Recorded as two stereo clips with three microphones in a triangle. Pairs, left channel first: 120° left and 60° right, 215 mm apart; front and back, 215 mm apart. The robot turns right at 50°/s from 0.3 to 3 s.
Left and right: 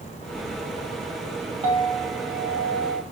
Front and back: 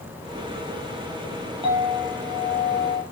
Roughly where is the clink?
Behind right.